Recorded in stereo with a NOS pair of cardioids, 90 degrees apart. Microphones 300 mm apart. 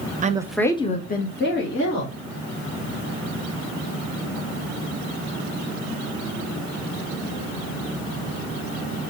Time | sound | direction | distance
0.2 | a woman speaking | 25° right | 0.7 m